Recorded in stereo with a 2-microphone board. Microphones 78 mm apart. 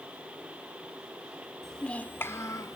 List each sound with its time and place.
1.6 s a child speaking: 5° left (ahead or behind), 1.0 m; by 2.8 s 50° left (ahead or behind), 1.1 m